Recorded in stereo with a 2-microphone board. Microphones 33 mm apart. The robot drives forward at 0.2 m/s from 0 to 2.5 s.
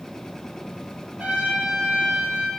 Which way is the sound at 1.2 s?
55° right (ahead or behind).